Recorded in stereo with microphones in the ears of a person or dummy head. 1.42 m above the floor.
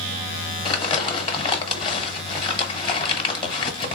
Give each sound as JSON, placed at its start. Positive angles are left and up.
{"t": 0.7, "sound": "crumpling", "side_deg": 25, "distance_m": 1.0}